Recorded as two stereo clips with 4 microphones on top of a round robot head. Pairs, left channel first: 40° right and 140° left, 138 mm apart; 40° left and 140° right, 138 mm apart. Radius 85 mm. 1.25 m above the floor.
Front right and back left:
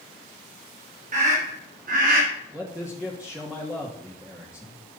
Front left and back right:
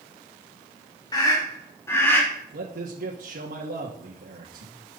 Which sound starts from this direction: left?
A scream, at 1.1 s.